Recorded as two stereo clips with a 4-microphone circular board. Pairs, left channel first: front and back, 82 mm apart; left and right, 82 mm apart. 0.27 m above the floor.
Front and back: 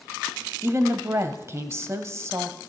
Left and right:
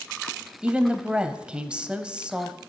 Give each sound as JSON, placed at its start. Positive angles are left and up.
{"t": 0.6, "sound": "a woman speaking", "azimuth_deg": -160, "distance_m": 1.1}